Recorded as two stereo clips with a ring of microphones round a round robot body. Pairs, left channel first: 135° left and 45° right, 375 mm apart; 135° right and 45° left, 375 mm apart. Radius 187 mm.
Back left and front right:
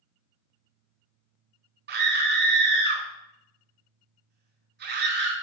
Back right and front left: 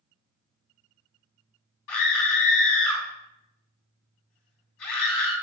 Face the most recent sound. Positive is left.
turn(degrees=-110)